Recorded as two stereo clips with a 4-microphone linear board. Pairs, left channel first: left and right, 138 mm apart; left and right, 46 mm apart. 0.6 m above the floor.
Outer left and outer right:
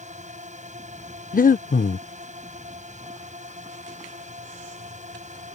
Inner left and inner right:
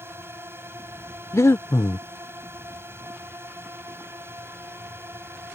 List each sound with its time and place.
0.0 s a drone: 60° right (ahead or behind)
1.3 s breathing: 90° left